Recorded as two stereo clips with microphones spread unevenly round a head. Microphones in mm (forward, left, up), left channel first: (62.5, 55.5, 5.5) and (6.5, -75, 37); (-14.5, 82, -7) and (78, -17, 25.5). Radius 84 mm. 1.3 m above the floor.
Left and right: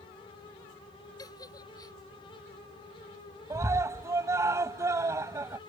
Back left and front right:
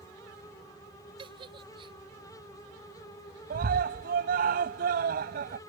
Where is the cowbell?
I don't hear a cowbell.